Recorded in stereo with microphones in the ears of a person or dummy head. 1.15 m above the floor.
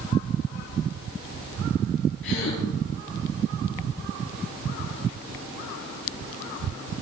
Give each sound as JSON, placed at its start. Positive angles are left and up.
{"t": 2.2, "sound": "a gasp", "side_deg": 65, "distance_m": 6.0}